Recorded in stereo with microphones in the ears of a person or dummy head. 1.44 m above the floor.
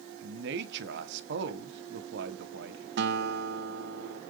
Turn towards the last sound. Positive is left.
turn(degrees=-50)  # may be behind; listen again after turning